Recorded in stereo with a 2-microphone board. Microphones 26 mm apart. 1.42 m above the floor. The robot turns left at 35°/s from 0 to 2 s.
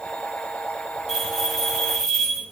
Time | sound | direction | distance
1.1 | a bell | 160° right | 2 m